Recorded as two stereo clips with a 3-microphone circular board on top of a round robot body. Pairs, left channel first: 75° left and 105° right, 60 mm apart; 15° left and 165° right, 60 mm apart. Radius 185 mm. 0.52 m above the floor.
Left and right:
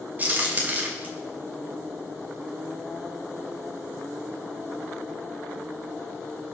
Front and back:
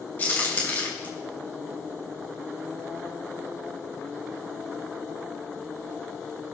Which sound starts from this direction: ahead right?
A crack, at 0.2 s.